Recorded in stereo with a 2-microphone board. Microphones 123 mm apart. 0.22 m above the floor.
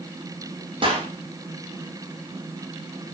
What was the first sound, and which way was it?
A clap, 40° right (ahead or behind).